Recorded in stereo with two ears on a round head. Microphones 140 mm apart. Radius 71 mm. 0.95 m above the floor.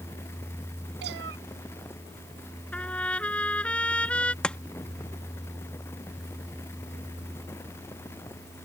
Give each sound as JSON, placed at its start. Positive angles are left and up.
{"t": 1.0, "sound": "a cat meowing", "side_deg": -80}
{"t": 2.7, "sound": "a trumpet", "side_deg": 10}
{"t": 4.4, "sound": "chopping", "side_deg": 5}